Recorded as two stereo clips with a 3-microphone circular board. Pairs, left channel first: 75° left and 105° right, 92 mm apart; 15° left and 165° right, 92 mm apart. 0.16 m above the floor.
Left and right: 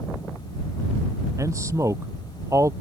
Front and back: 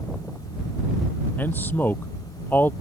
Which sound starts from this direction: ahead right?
A man speaking, at 1.4 s.